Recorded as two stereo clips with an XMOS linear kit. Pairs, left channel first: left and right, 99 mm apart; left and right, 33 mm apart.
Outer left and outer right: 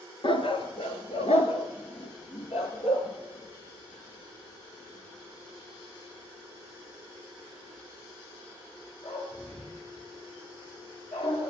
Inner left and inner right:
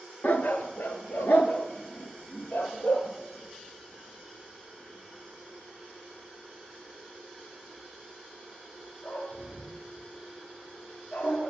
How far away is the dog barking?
About 1.1 m.